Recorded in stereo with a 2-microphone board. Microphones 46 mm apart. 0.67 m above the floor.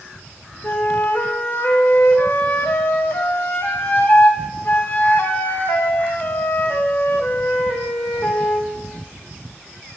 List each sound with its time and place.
0.6 s a flute: 50° left (ahead or behind), 0.6 m